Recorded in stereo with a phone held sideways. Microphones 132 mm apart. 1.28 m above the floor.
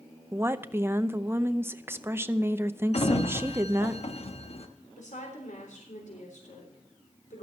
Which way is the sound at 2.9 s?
55° left (ahead or behind).